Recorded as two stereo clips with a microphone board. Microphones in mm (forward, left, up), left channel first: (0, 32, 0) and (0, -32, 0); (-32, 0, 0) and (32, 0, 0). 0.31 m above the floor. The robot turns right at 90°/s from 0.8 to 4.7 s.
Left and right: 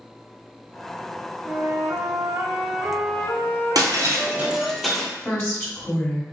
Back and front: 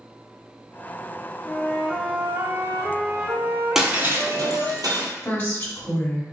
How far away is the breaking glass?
About 1.0 m.